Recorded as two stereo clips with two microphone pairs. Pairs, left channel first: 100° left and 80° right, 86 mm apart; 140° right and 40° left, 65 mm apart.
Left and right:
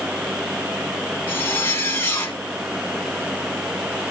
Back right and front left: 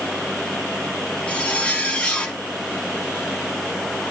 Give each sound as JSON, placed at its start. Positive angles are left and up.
{"t": 1.3, "sound": "a zipper", "azimuth_deg": 150, "distance_m": 1.2}